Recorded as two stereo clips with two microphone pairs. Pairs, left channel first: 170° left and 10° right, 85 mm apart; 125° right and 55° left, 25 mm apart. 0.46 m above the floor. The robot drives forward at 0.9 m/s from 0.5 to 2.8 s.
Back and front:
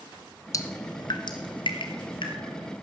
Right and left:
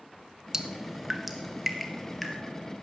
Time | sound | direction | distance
0.5 | dripping | 125° left | 1.0 m